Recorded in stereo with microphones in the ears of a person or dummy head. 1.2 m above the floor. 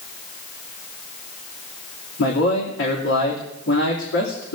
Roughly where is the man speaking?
Left.